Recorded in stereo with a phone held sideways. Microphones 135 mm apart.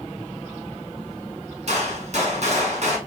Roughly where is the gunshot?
Right.